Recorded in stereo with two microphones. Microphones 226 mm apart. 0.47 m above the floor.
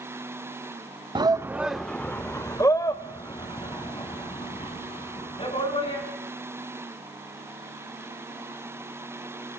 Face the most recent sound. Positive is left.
turn(degrees=25)  # may be behind; listen again after turning